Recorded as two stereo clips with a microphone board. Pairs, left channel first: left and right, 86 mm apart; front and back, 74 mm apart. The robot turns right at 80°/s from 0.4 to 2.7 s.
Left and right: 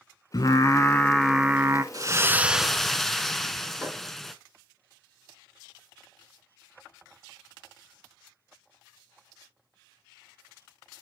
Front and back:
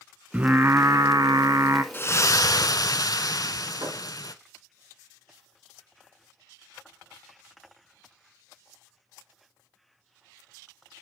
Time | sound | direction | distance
0.3 | singing | 110° left | 0.6 m
1.9 | a splash | 55° right | 0.6 m
3.8 | a thud | 160° right | 3.5 m